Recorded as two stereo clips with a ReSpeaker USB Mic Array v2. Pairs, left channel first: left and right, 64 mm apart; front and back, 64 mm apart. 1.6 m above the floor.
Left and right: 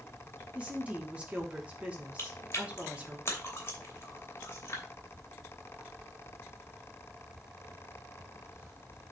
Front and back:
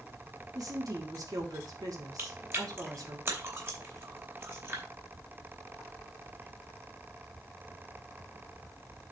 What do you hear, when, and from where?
0.6 s a woman speaking: 160° right, 2.5 m
2.2 s chewing: 135° left, 2.5 m